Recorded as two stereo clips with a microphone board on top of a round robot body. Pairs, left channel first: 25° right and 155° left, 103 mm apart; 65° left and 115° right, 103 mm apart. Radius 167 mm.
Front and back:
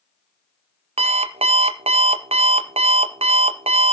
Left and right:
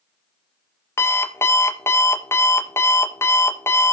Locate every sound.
1.0 s an alarm clock: 135° left, 1.0 m